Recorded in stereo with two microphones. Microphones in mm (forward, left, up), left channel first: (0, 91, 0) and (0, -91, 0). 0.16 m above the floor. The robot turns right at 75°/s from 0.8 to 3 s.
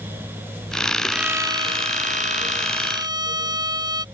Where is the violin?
Straight behind; by 4.0 s 35° right.